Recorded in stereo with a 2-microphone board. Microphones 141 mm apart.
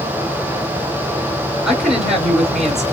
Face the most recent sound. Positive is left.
turn(degrees=-5)  # may be behind; listen again after turning